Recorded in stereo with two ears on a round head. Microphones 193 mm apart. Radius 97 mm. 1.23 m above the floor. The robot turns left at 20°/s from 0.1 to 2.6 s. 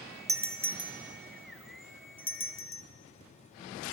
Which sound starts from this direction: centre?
A doorbell, at 0.3 s.